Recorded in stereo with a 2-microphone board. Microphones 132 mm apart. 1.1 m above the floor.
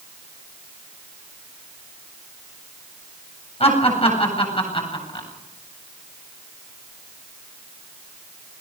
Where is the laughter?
50° left (ahead or behind), 8 m; by 5.3 s 40° left (ahead or behind), 8 m.